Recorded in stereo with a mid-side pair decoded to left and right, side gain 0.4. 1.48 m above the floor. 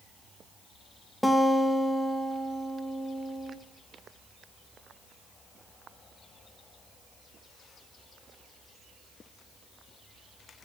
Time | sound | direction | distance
1.2 | a guitar | 10° left | 1.7 m